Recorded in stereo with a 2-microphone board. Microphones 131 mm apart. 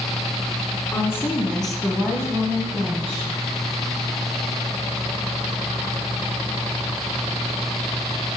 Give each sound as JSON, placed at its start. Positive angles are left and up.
{"t": 0.9, "sound": "a woman speaking", "side_deg": 25, "distance_m": 2.0}